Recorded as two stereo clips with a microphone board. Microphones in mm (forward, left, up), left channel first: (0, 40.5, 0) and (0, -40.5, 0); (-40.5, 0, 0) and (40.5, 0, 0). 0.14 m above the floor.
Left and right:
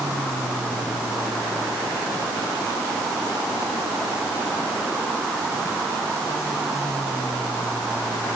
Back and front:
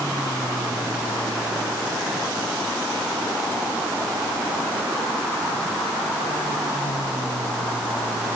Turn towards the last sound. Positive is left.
No sound to turn to.